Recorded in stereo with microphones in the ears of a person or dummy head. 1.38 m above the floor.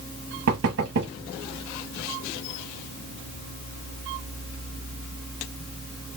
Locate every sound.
0.5 s knocking: 60° right (ahead or behind), 0.9 m